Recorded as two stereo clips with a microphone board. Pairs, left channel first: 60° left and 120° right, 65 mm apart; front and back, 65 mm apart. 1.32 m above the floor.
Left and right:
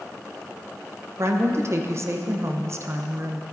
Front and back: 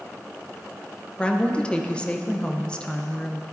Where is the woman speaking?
75° right, 0.7 m.